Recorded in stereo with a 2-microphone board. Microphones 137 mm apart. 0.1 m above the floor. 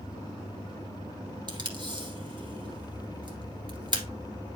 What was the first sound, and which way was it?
Tape being pulled, 35° right (ahead or behind).